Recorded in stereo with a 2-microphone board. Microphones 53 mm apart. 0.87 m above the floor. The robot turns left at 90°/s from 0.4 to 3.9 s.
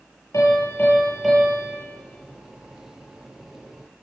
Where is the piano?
75° left, 9 m; by 1.8 s 50° right, 9 m.